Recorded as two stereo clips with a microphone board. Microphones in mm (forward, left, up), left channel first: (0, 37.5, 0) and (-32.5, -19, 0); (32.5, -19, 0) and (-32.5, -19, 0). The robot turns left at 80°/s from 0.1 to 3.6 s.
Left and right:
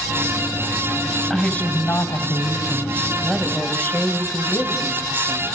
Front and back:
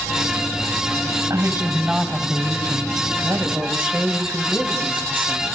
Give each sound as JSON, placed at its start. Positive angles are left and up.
{"t": 1.3, "sound": "a woman speaking", "azimuth_deg": 150, "distance_m": 2.5}
{"t": 3.2, "sound": "a woman speaking", "azimuth_deg": 155, "distance_m": 2.5}